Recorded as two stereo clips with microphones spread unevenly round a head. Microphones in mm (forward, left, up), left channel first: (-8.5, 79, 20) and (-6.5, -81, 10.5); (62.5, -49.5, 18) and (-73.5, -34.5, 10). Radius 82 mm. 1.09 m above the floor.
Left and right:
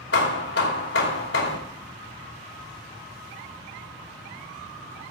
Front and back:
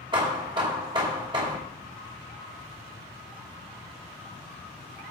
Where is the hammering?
110° left, 2.5 m.